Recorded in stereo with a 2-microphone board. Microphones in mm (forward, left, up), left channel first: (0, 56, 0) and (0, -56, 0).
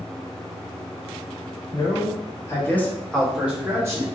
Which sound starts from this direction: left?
A man speaking, at 1.7 s.